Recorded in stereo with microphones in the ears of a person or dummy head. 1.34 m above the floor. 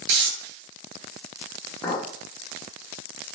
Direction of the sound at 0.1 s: 70° right (ahead or behind).